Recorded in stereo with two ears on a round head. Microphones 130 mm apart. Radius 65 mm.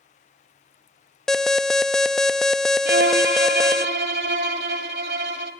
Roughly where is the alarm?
Centre.